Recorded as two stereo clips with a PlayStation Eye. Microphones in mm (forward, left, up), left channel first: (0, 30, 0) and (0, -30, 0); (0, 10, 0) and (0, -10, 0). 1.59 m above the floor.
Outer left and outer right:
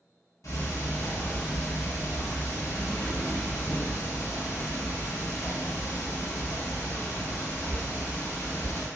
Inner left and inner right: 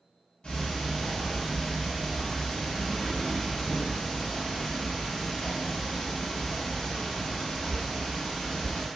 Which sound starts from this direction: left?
Ticking, at 0.4 s.